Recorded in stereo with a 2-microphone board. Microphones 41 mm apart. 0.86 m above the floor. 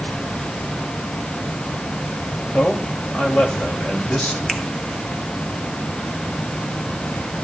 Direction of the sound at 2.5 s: 30° left (ahead or behind).